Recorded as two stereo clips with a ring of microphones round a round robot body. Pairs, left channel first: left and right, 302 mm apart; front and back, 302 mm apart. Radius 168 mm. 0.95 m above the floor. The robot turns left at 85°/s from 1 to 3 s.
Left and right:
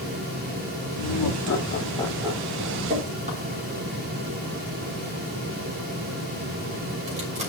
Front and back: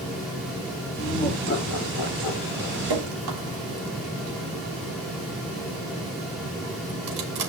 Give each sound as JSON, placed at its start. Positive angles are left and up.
{"t": 1.0, "sound": "laughter", "azimuth_deg": 95, "distance_m": 2.5}
{"t": 2.9, "sound": "dripping", "azimuth_deg": -150, "distance_m": 3.0}